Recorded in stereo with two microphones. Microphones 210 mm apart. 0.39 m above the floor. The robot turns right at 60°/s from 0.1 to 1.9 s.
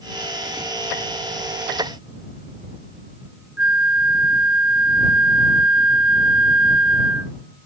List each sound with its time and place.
3.6 s a flute: 70° left (ahead or behind)